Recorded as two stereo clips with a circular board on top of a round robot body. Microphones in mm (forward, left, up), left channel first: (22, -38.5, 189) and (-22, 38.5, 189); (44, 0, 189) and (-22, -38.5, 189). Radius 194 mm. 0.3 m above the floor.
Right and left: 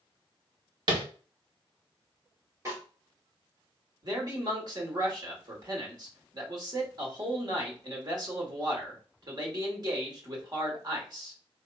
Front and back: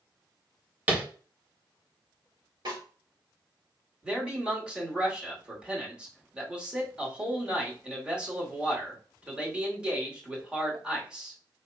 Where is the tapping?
145° left, 1.6 m.